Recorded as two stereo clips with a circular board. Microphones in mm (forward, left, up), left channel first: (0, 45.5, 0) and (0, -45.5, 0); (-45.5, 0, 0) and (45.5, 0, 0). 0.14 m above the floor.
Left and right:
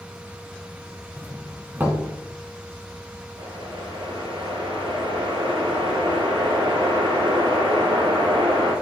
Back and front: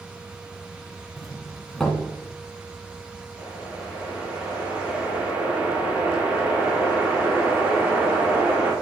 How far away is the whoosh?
About 2.5 m.